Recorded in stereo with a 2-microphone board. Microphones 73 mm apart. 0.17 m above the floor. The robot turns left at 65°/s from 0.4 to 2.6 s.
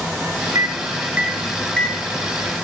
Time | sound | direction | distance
0.6 | a microwave | 50° right (ahead or behind) | 2 m